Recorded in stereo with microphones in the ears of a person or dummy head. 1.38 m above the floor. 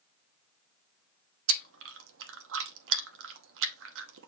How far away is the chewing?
About 0.7 m.